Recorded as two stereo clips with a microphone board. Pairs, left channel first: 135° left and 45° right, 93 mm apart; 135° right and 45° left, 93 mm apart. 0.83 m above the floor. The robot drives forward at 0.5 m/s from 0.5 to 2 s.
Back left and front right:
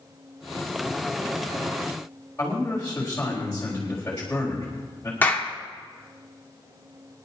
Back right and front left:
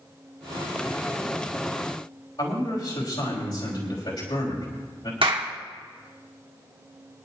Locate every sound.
2.4 s a man speaking: 155° right, 4 m
5.2 s a clap: 65° left, 1.6 m